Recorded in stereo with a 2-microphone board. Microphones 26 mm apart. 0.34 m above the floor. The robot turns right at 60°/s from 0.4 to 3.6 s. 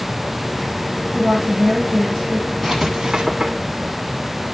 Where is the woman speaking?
55° right, 7 m; by 2.5 s 30° left, 7 m.